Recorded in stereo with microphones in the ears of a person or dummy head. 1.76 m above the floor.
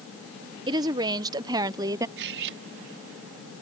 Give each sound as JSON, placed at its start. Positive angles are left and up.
{"t": 0.7, "sound": "a woman speaking", "side_deg": -20}
{"t": 2.2, "sound": "cutlery clinking", "side_deg": -60}